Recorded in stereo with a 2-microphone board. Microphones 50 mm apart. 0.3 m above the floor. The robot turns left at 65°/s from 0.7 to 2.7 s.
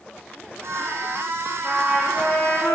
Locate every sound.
1.6 s a trumpet: 165° right, 9 m; by 2.8 s 125° left, 9 m